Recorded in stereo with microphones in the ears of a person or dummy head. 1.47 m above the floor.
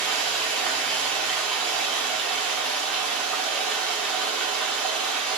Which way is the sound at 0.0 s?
Centre (ahead or behind).